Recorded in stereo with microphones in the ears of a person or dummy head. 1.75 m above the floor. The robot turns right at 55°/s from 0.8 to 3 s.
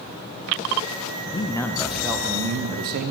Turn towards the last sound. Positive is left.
turn(degrees=-120)